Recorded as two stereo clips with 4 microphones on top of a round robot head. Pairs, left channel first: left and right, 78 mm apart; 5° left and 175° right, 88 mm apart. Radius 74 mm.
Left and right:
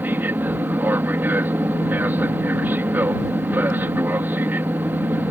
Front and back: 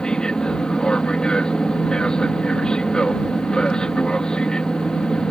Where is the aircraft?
65° right.